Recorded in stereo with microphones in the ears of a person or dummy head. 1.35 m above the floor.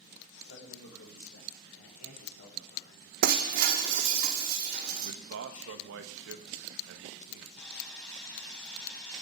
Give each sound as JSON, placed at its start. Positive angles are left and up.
{"t": 0.4, "sound": "a man speaking", "side_deg": 75, "distance_m": 5.5}
{"t": 3.2, "sound": "breaking glass", "side_deg": -55, "distance_m": 1.4}
{"t": 5.0, "sound": "a man speaking", "side_deg": -75, "distance_m": 1.2}
{"t": 7.6, "sound": "sawing", "side_deg": 5, "distance_m": 4.5}